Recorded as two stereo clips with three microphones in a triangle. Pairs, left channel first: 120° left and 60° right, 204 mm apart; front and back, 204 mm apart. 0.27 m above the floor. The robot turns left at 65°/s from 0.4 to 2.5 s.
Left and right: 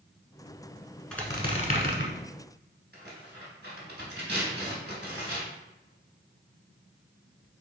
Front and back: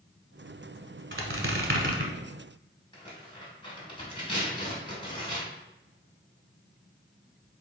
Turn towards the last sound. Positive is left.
turn(degrees=-60)